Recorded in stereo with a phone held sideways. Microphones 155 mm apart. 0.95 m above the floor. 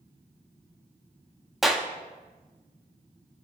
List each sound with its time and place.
1.6 s a clap: centre (ahead or behind), 0.9 m